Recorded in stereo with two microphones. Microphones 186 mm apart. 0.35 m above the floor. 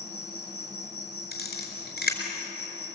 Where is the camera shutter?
55° left (ahead or behind), 4.5 m.